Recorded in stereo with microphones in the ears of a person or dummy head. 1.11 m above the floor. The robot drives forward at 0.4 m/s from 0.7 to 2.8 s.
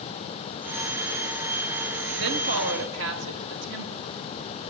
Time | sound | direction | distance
2.2 | a woman speaking | 65° right (ahead or behind) | 1.8 m